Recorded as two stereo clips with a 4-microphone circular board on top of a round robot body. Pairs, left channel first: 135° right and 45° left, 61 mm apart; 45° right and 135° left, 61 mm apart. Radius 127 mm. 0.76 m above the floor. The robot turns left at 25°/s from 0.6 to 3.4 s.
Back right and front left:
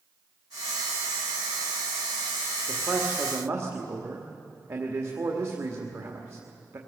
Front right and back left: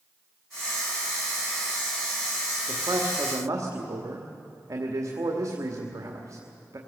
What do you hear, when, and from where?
2.7 s a man speaking: 110° left, 1.9 m; by 6.8 s 95° left, 1.9 m